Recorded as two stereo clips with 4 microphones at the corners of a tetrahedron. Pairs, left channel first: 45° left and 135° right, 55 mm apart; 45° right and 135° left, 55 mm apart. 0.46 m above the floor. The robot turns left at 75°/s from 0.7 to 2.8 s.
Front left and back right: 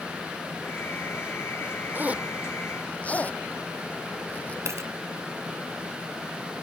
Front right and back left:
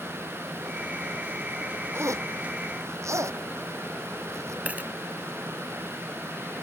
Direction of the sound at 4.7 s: 165° right.